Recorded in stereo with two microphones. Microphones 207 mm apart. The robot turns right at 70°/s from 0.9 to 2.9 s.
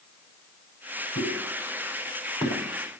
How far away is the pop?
About 6.5 m.